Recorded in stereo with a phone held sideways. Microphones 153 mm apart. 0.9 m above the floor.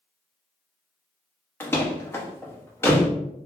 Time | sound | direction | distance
1.6 | a door slam | 15° left (ahead or behind) | 0.5 m